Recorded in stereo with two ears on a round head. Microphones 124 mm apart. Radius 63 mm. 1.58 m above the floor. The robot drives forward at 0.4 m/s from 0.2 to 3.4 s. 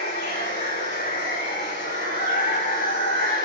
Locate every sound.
0.0 s running water: 70° left (ahead or behind), 5.5 m; by 3.5 s 80° left, 5.5 m